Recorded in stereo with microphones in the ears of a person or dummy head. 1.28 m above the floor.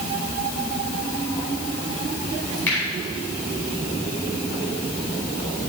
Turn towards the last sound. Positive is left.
turn(degrees=0)  # may be behind; listen again after turning